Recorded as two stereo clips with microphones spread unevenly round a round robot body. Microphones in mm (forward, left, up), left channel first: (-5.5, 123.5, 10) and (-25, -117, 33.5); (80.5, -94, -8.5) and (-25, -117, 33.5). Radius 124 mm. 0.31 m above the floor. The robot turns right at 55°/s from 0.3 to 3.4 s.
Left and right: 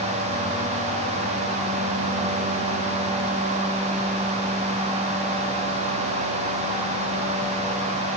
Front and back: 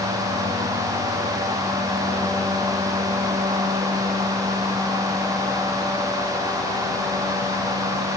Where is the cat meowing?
No cat meowing in this recording.